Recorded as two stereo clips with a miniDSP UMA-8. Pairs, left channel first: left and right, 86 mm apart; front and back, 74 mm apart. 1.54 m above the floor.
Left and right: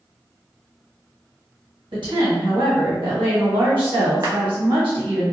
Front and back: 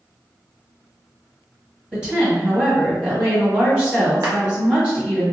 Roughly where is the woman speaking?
Right.